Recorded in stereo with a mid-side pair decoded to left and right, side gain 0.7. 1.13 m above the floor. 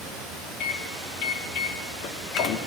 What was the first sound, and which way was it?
A microwave, 55° left.